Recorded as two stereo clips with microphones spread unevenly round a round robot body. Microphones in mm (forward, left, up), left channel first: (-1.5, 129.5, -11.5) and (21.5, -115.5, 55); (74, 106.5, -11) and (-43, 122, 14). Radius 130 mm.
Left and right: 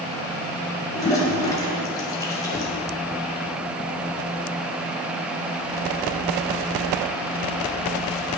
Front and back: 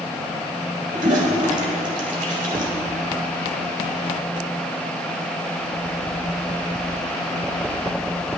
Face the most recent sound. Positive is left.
turn(degrees=175)